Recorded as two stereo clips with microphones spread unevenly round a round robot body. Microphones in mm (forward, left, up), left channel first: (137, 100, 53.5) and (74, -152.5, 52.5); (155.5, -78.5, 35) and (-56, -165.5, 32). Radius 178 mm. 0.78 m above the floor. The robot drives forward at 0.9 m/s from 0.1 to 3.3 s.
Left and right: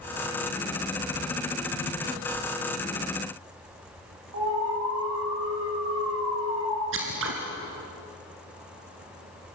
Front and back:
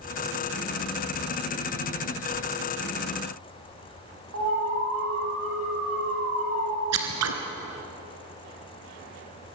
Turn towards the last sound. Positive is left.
turn(degrees=-160)